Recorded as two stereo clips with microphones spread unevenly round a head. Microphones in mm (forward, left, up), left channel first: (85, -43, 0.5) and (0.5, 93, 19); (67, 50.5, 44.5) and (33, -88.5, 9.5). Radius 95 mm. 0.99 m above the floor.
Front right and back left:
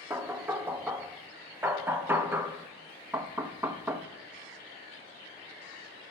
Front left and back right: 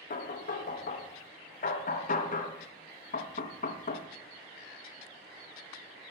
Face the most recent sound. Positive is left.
turn(degrees=45)